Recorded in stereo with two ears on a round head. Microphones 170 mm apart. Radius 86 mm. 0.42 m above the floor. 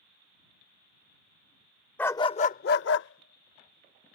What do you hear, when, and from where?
2.0 s a dog barking: 10° left (ahead or behind); by 4.2 s 70° left (ahead or behind)